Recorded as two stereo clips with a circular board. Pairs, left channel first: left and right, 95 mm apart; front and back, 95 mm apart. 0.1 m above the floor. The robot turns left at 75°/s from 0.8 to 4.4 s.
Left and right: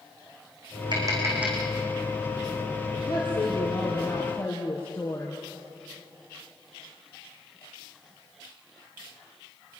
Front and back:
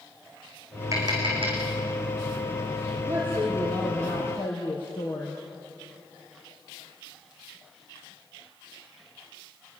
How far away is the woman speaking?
About 3.5 m.